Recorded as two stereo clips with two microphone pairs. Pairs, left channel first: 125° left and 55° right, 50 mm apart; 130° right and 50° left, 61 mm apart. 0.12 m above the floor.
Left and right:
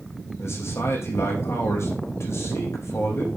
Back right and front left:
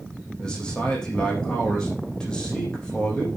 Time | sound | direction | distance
0.4 | a man speaking | 150° left | 5.5 m